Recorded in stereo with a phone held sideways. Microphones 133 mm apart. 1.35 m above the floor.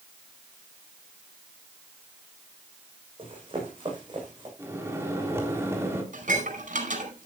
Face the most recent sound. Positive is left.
turn(degrees=-80)